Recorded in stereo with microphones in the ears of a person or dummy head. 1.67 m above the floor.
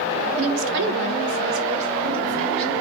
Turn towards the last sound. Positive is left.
turn(degrees=-40)  # may be behind; listen again after turning